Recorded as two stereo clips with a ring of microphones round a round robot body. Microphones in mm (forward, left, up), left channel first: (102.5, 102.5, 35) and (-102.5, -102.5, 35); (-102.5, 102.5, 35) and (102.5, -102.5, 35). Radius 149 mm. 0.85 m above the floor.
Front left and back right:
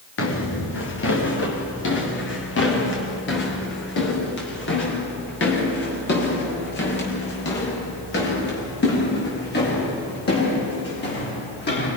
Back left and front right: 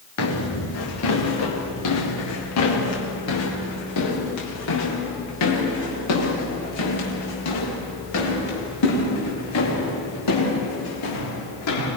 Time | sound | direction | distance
0.2 | footsteps | 95° left | 5.5 m